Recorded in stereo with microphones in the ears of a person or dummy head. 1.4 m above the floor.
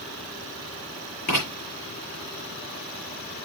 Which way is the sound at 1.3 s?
50° left (ahead or behind).